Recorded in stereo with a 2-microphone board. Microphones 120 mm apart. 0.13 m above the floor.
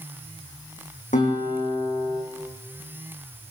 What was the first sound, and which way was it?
A guitar, 80° left.